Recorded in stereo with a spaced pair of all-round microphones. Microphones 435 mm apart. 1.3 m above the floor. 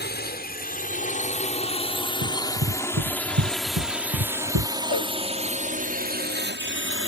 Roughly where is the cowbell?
Right.